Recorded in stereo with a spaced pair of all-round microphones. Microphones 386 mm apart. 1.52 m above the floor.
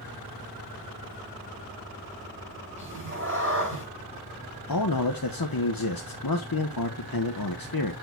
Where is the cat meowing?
30° right (ahead or behind), 5.5 m.